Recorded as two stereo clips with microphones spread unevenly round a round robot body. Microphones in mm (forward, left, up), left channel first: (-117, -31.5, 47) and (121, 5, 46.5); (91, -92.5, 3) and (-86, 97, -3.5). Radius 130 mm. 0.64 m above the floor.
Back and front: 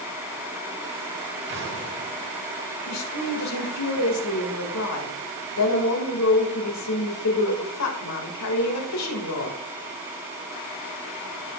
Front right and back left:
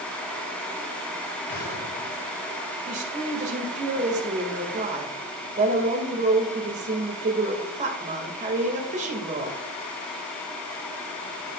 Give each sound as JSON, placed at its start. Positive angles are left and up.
{"t": 1.5, "sound": "an explosion", "azimuth_deg": -30, "distance_m": 2.5}
{"t": 2.9, "sound": "a woman speaking", "azimuth_deg": -165, "distance_m": 2.0}